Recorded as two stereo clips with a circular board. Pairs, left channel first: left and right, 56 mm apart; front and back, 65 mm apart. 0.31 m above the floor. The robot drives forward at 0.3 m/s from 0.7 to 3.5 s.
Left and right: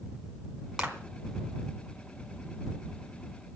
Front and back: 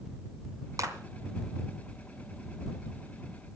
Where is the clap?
165° right, 2.5 m.